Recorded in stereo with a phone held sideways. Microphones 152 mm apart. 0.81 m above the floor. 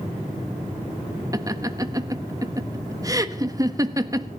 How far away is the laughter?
About 1.3 m.